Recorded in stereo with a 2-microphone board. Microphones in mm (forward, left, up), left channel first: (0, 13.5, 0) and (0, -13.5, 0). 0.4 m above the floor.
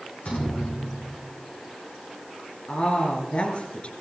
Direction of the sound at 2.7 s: 45° left (ahead or behind).